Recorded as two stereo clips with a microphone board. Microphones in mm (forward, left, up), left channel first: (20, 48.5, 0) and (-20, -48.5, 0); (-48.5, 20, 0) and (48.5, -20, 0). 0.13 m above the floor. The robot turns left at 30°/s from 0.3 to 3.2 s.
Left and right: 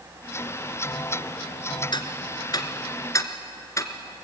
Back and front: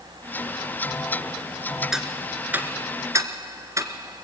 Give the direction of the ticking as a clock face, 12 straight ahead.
10 o'clock.